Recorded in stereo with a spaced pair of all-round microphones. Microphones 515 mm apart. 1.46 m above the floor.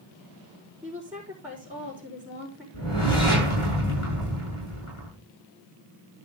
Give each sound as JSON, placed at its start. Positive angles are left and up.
{"t": 0.8, "sound": "a woman speaking", "side_deg": -10, "distance_m": 4.5}
{"t": 2.7, "sound": "a whoosh", "side_deg": 75, "distance_m": 6.5}